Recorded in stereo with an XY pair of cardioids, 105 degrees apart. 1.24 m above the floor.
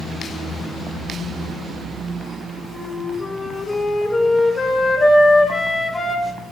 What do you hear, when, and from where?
2.7 s a flute: 25° left, 2.0 m